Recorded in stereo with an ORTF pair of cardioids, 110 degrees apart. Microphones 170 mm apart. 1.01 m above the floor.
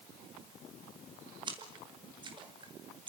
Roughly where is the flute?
I don't hear a flute.